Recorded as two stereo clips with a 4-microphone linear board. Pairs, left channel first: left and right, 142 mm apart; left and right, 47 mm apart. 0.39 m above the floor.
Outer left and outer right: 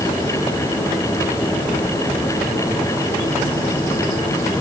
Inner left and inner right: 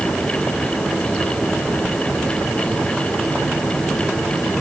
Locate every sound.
Only background noise.